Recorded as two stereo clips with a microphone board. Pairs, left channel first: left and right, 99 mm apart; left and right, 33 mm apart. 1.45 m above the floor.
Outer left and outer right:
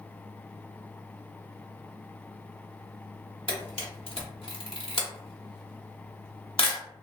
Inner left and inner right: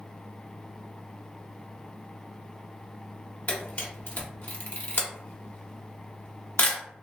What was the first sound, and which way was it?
A camera shutter, 65° left (ahead or behind).